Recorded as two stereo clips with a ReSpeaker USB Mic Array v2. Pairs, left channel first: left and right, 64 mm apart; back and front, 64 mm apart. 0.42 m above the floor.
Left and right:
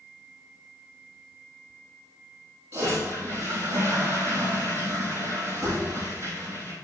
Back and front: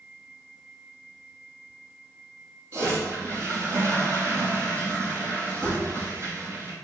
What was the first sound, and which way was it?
A toilet flushing, 40° right.